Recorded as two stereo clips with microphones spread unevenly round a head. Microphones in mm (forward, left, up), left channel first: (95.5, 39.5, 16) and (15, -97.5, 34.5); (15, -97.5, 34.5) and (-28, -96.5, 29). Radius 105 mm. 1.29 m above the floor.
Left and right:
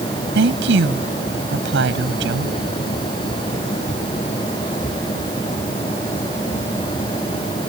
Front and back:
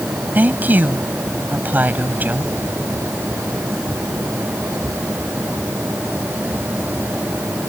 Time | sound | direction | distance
0.3 | a woman speaking | 135° right | ?